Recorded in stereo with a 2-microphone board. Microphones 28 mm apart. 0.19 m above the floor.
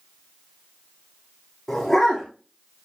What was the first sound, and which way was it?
A dog barking, 5° left (ahead or behind).